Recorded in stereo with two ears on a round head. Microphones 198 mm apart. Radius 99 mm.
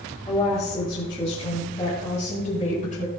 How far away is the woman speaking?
About 7 m.